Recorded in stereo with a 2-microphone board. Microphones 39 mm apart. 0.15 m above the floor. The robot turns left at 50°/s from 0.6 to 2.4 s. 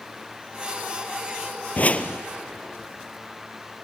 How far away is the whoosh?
About 0.9 m.